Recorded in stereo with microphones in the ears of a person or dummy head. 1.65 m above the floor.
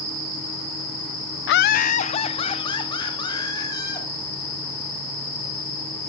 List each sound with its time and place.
1.5 s laughter: 60° left (ahead or behind), 0.5 m; by 4.1 s 20° left (ahead or behind), 4 m